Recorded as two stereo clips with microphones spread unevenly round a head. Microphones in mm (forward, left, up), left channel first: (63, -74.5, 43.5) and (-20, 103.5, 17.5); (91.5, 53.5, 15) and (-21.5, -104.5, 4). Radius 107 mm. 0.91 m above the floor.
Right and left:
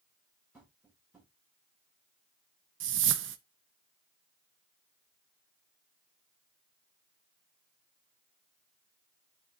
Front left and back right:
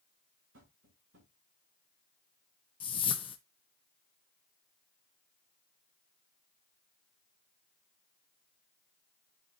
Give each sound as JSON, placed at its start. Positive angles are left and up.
{"t": 0.5, "sound": "tapping", "azimuth_deg": -160, "distance_m": 6.0}
{"t": 2.8, "sound": "a whoosh", "azimuth_deg": 120, "distance_m": 0.8}